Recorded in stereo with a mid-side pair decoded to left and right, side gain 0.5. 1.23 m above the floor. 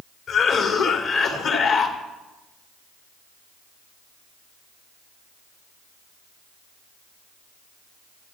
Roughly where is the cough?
Left.